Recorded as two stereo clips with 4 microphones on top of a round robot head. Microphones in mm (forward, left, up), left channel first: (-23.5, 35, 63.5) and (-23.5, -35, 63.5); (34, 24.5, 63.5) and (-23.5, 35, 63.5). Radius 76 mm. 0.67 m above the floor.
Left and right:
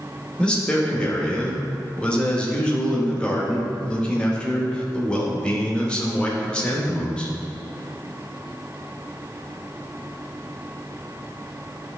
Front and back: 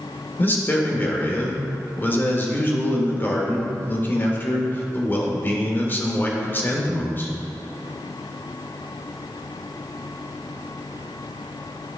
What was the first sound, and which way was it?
A man speaking, 20° left.